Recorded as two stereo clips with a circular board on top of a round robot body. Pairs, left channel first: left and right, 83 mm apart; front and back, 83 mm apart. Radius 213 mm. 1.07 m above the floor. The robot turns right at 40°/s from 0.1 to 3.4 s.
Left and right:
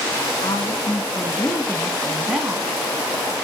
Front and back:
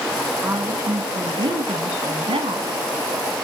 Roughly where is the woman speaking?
Behind left.